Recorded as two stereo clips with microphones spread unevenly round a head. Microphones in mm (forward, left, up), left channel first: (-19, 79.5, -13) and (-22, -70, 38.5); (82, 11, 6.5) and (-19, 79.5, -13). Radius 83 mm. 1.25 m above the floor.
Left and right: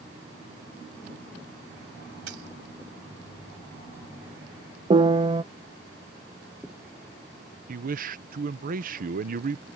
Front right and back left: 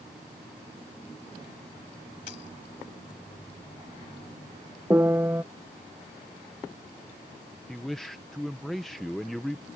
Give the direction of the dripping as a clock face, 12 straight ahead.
I don't hear dripping.